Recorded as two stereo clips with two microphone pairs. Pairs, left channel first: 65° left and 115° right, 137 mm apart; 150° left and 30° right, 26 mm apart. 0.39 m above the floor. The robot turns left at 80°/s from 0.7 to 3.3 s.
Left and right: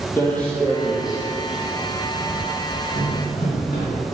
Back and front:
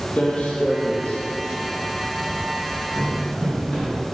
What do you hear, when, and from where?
0.2 s footsteps: 130° left, 0.7 m; by 3.9 s 60° left, 1.6 m